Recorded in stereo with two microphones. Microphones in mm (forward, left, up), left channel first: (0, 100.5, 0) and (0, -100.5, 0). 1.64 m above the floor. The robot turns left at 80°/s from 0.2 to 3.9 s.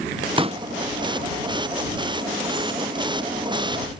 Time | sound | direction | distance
0.4 | a pop | 25° right (ahead or behind) | ?